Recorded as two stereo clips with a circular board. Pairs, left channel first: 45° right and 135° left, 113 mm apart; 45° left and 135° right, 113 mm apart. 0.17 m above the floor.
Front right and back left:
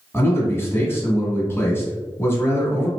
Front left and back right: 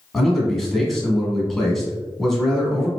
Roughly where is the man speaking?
Ahead right.